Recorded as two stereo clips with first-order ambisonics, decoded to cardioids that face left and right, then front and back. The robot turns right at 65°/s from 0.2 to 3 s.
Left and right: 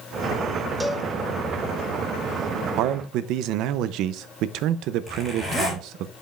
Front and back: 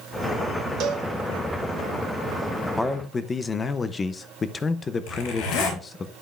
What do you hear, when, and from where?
0.8 s a cowbell: 170° right, 0.7 m; by 1.1 s 150° right, 0.7 m
2.8 s a man speaking: 85° right, 0.6 m; by 6.1 s 70° right, 0.6 m
5.1 s a zipper: straight ahead, 4 m